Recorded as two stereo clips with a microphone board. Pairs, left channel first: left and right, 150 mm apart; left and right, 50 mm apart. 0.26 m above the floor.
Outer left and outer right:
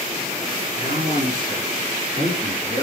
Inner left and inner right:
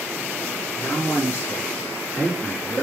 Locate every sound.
0.8 s a man speaking: 70° left (ahead or behind), 4 m; by 2.8 s 30° left (ahead or behind), 2 m